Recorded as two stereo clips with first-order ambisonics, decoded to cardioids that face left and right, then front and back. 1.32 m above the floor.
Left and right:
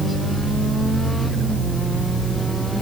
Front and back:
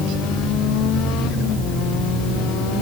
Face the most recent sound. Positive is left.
No sound to turn to.